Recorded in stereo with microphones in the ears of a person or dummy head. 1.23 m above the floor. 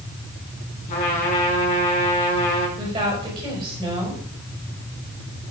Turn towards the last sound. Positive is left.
turn(degrees=-25)  # may be behind; listen again after turning